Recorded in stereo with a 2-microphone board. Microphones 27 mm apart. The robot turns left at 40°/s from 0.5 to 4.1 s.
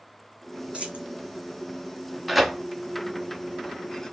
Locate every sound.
0.7 s a dropped coin: 45° right (ahead or behind), 1.2 m; by 1.1 s 60° right (ahead or behind), 1.2 m
2.3 s tearing paper: 5° right (ahead or behind), 0.7 m; by 4.1 s 20° left (ahead or behind), 0.7 m